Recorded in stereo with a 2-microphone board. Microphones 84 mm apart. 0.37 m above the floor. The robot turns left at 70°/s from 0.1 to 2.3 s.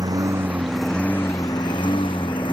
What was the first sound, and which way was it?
A lawn mower, 130° right.